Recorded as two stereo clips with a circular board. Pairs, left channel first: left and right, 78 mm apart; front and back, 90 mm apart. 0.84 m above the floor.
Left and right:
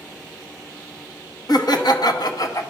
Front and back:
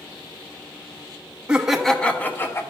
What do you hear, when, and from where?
1.5 s laughter: 100° left, 0.9 m; by 2.6 s 55° left, 1.1 m